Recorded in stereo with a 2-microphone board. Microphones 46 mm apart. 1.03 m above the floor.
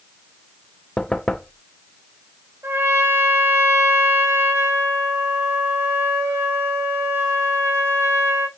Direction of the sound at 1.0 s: 15° left (ahead or behind).